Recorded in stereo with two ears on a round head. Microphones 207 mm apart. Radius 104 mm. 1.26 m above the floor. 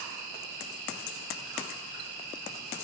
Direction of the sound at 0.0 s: 40° left (ahead or behind).